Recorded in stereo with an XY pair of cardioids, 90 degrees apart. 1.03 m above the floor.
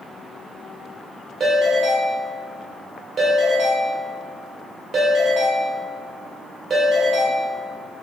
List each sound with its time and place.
1.4 s a ringtone: 50° right, 1.4 m